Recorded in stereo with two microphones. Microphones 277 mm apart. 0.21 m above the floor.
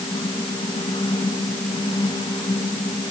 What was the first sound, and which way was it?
Only background noise.